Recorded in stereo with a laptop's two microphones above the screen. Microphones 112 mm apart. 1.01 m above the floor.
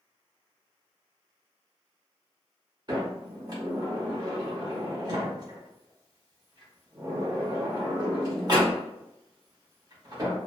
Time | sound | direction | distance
2.9 | a sliding door | 40° right (ahead or behind) | 0.9 m